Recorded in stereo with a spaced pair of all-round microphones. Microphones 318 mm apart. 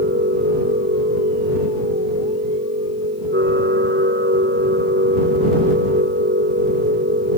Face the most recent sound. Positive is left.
turn(degrees=-35)  # may be behind; listen again after turning